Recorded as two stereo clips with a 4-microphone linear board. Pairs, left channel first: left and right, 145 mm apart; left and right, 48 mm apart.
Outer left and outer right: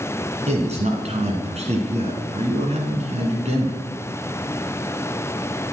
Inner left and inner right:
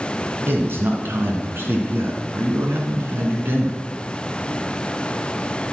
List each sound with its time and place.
0.5 s a man speaking: 50° right (ahead or behind), 2.5 m